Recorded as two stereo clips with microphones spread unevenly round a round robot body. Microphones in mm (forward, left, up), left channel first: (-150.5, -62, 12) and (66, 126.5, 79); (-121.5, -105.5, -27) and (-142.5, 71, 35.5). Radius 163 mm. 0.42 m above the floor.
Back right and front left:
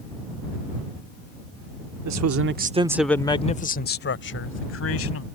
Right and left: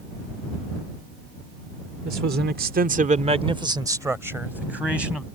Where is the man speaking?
50° left; by 5.2 s 170° right.